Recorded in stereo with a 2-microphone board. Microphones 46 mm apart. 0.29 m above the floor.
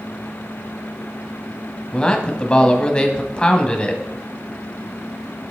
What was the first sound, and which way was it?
A man speaking, 20° left (ahead or behind).